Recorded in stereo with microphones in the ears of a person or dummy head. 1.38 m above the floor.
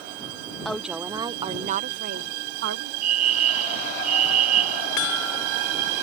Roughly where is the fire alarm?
Right.